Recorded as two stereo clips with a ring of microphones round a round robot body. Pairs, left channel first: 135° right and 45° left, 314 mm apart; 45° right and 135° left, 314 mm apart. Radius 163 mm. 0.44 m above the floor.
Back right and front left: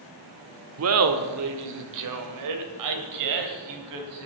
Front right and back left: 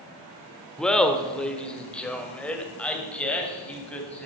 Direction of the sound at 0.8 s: 40° left.